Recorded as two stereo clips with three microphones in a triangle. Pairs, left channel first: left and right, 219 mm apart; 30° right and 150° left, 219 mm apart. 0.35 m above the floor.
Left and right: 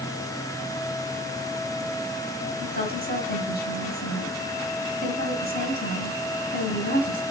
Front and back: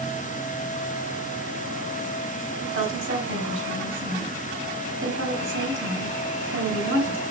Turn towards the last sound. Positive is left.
turn(degrees=135)